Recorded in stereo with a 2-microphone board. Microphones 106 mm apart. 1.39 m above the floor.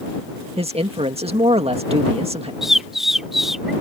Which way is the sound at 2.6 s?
5° right (ahead or behind).